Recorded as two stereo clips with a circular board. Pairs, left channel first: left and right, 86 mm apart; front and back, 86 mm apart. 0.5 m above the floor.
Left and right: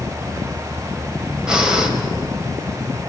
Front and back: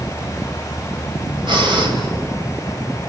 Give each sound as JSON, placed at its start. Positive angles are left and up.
{"t": 1.5, "sound": "breathing", "azimuth_deg": -170, "distance_m": 3.0}